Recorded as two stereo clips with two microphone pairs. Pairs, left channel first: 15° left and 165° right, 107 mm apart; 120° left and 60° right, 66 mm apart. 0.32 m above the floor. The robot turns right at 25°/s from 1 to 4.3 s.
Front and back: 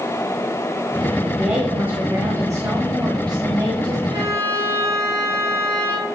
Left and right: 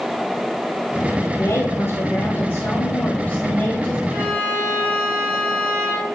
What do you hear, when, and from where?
1.4 s a woman speaking: 120° left, 1.8 m; by 4.0 s 175° right, 1.8 m
4.1 s a violin: 120° right, 4.5 m; by 6.0 s 115° right, 4.5 m